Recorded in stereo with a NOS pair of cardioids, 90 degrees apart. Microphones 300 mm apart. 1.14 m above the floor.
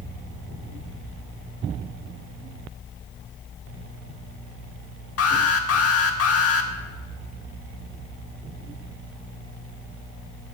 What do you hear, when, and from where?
5.2 s an alarm: 55° left, 2 m